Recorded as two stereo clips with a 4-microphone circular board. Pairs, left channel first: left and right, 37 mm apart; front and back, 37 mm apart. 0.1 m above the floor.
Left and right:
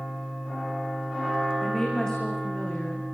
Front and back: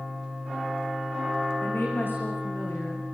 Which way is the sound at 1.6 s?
15° left.